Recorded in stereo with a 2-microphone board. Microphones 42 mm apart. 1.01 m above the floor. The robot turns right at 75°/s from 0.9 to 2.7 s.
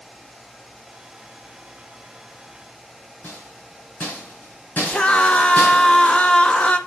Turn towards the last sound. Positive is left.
turn(degrees=30)  # may be behind; listen again after turning